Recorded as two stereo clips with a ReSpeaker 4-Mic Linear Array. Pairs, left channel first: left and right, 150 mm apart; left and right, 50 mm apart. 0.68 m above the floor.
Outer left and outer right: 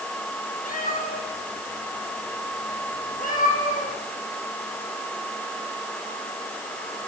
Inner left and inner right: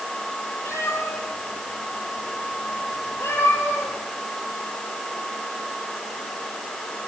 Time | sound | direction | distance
0.7 | a cat meowing | 85° left | 7.5 m